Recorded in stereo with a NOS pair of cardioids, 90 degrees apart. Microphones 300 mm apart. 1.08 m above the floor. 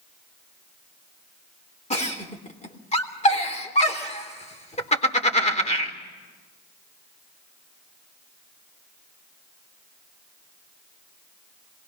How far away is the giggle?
About 3.5 m.